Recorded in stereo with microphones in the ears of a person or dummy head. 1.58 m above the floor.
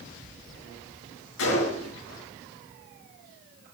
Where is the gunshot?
75° left (ahead or behind), 6 m.